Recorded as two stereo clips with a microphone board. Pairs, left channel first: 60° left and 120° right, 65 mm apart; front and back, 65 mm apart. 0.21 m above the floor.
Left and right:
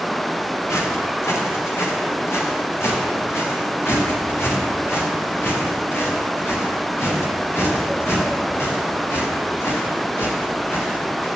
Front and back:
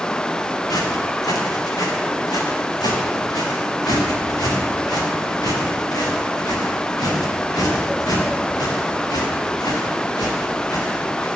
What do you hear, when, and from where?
0.7 s footsteps: 15° left, 5 m; by 11.3 s 5° left, 11.5 m